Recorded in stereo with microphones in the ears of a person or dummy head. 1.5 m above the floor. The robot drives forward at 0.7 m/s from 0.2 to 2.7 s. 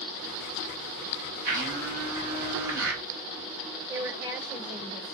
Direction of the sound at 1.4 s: 45° right (ahead or behind).